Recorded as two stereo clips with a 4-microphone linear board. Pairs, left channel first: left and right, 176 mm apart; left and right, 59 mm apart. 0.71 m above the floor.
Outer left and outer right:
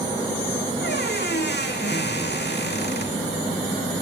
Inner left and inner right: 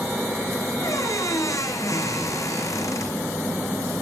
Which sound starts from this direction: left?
A squeak, at 0.8 s.